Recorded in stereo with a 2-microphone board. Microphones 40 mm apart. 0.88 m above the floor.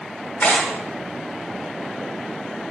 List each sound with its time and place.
0.4 s tearing paper: 45° left (ahead or behind), 0.9 m